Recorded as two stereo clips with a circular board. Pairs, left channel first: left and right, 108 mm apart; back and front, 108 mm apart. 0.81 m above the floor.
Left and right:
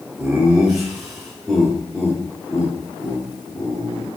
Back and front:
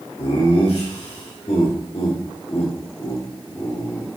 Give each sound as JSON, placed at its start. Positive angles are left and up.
{"t": 0.2, "sound": "laughter", "azimuth_deg": -170, "distance_m": 2.0}